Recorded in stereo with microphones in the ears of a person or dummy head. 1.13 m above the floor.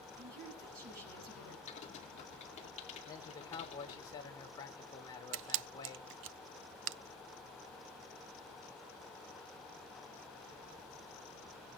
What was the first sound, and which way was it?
A woman speaking, 60° right (ahead or behind).